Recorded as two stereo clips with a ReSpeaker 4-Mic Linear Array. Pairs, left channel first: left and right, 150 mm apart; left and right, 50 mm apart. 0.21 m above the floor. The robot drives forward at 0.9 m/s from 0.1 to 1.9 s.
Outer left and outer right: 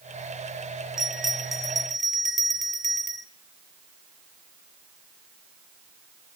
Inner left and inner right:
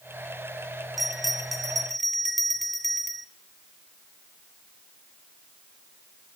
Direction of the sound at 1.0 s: 5° right (ahead or behind).